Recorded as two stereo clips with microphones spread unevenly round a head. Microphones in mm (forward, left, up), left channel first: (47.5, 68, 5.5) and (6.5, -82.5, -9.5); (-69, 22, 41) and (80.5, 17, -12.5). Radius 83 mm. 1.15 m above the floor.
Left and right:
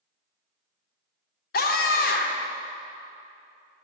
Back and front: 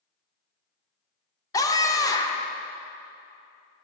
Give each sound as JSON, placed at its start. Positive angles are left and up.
{"t": 1.5, "sound": "a scream", "azimuth_deg": 100, "distance_m": 0.8}